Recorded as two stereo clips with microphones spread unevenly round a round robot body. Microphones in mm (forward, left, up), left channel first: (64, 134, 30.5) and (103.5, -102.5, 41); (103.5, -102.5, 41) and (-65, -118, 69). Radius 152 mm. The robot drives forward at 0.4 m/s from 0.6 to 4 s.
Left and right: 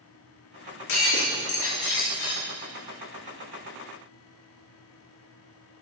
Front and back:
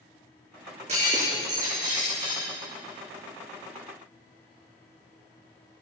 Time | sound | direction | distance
0.9 | breaking glass | 120° left | 5.5 m